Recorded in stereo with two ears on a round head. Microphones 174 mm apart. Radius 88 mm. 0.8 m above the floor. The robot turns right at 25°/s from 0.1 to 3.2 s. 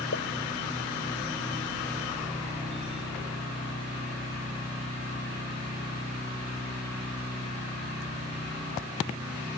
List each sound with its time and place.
0.1 s a pop: 75° left (ahead or behind)